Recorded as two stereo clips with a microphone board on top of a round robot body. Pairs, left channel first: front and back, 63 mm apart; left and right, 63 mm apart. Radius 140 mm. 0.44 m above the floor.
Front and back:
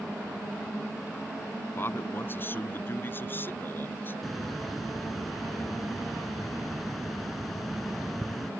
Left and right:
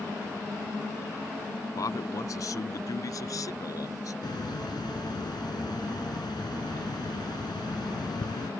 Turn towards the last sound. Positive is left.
turn(degrees=90)